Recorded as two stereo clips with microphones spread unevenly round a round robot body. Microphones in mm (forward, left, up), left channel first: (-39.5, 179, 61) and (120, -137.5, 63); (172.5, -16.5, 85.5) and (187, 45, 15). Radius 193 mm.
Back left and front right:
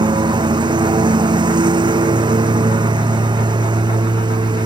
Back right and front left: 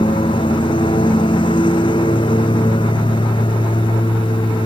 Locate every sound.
0.0 s a lawn mower: 140° right